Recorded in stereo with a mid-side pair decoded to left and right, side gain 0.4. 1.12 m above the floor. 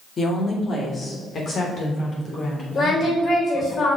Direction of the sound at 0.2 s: 45° left.